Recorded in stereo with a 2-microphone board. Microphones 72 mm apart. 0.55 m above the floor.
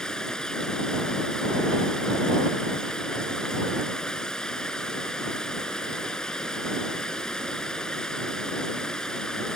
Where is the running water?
10° left (ahead or behind).